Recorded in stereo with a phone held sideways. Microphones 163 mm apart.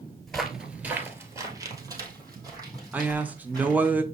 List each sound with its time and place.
0.3 s footsteps: centre (ahead or behind), 1.2 m; by 3.9 s 25° right (ahead or behind), 4 m
2.9 s a man speaking: 10° right (ahead or behind), 0.6 m